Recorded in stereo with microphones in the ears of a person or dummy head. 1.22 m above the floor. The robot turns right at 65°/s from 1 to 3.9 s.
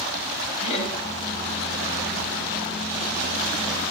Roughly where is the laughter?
Left.